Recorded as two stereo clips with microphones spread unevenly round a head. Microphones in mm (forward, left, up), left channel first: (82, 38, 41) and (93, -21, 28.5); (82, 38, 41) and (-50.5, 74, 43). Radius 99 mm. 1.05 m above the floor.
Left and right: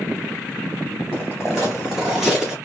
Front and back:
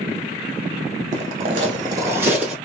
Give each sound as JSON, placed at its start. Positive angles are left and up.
{"t": 1.1, "sound": "footsteps", "azimuth_deg": 175, "distance_m": 1.3}